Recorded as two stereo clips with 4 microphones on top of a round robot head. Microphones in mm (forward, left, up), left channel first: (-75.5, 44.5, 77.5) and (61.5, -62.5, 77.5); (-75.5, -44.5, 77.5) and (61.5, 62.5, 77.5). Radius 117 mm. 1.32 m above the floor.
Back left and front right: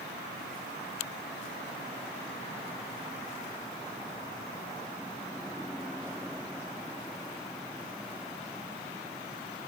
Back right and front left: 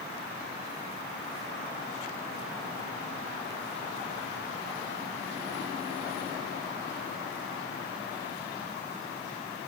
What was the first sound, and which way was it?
Only background noise.